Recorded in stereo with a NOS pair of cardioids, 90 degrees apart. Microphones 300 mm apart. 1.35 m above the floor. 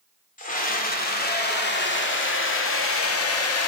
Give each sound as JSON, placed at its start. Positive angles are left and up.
{"t": 0.4, "sound": "a scream", "azimuth_deg": 25, "distance_m": 3.5}